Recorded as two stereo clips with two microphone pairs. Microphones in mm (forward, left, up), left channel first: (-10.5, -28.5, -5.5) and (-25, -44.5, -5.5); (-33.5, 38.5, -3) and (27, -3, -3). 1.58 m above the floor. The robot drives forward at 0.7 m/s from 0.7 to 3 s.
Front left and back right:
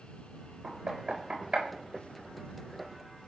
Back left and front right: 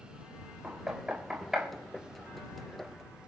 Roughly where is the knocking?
Right.